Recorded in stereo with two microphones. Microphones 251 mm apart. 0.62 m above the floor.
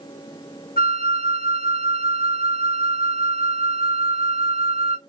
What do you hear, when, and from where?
0.8 s a flute: 40° left (ahead or behind), 0.9 m